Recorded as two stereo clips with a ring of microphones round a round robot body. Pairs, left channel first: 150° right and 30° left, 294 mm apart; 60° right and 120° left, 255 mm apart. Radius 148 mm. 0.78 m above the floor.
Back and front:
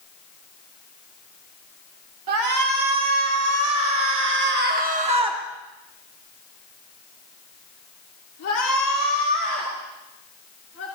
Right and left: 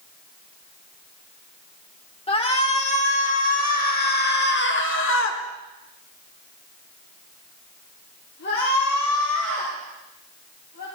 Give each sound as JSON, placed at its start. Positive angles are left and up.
{"t": 2.3, "sound": "a shout", "azimuth_deg": 5, "distance_m": 3.5}